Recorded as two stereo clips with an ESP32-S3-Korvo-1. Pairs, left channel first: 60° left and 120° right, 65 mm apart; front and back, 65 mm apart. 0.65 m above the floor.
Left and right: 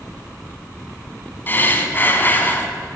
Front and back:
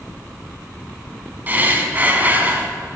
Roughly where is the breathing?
Behind left.